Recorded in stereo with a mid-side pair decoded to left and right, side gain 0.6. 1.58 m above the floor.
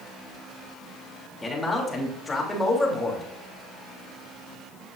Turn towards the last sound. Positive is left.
turn(degrees=15)